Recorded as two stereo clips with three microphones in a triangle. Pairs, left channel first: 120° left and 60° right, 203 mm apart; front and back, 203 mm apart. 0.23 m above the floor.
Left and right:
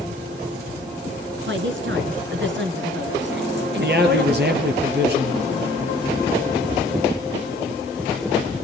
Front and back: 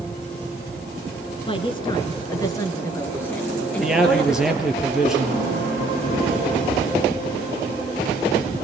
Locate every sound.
1.5 s a woman speaking: 60° right, 3.5 m; by 4.8 s 90° right, 4.5 m
3.8 s a man speaking: 95° right, 5 m